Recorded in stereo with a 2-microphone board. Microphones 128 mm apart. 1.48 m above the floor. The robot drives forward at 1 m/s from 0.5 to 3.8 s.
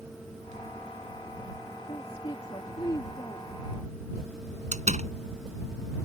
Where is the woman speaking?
45° left (ahead or behind); by 3.5 s 30° left (ahead or behind).